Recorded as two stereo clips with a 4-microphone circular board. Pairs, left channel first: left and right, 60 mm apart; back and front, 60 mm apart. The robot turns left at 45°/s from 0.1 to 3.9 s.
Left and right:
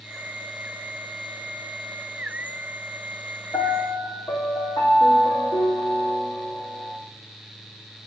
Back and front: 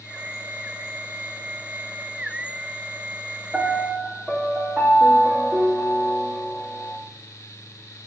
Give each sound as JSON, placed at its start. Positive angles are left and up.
{"t": 3.5, "sound": "a piano", "azimuth_deg": 90, "distance_m": 2.5}